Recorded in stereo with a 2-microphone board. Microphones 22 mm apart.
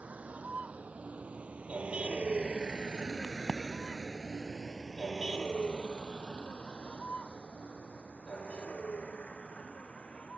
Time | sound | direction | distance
0.0 | a vehicle | 80° right | ?
3.2 | a crack | 15° left (ahead or behind) | ?